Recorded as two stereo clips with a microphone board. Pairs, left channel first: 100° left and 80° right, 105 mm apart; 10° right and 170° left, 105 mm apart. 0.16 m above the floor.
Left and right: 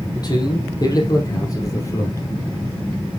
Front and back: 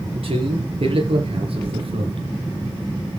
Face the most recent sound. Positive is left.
turn(degrees=160)